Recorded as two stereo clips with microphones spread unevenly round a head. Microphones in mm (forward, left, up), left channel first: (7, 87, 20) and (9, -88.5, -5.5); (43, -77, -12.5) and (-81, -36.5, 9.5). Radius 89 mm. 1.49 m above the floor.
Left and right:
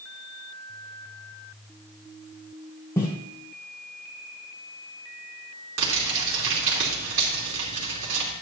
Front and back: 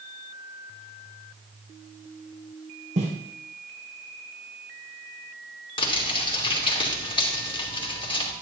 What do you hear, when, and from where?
3.0 s footsteps: 165° left, 3.5 m
5.8 s crumpling: 70° right, 3 m